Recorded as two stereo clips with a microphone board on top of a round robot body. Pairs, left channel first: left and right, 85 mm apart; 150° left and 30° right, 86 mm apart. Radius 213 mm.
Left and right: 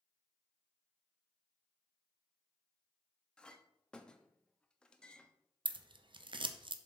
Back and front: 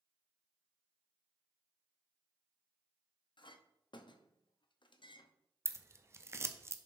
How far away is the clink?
About 0.9 m.